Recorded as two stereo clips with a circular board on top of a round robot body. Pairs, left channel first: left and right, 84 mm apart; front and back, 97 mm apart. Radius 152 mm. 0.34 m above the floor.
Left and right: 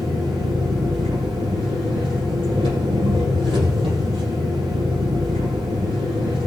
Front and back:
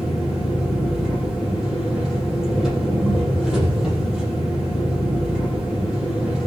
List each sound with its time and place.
0.0 s an engine running: 95° right, 6 m